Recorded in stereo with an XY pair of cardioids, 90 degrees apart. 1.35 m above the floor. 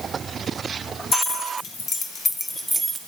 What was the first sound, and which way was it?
Keys jangling, 70° left.